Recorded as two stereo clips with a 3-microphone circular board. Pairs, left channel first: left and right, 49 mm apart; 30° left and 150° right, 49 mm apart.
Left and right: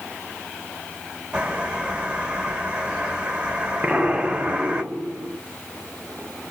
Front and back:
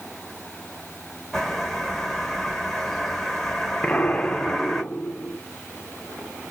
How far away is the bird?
About 1.2 m.